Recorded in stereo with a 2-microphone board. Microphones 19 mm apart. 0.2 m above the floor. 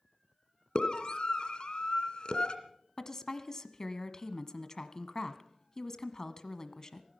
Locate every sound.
0.8 s a scream: 55° left (ahead or behind), 2 m
3.0 s a woman speaking: 35° left (ahead or behind), 1.3 m